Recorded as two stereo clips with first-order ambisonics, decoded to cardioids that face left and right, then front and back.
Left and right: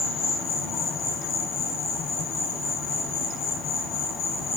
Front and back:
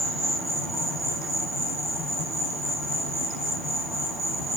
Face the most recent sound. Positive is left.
turn(degrees=85)